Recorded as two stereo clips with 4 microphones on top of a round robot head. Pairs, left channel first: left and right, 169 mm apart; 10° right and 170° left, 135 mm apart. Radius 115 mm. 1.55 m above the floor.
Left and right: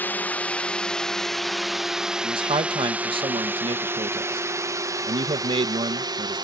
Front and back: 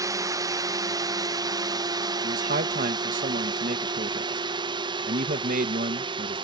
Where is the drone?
155° left; by 6.4 s 150° right.